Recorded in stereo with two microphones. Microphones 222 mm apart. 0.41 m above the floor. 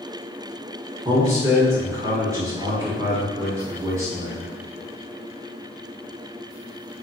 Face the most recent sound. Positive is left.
turn(degrees=-15)  # may be behind; listen again after turning